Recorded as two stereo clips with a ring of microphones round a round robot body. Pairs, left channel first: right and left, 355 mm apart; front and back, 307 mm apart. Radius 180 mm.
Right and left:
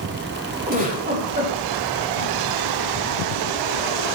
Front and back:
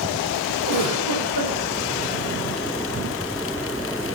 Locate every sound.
0.7 s a giggle: 25° left, 4 m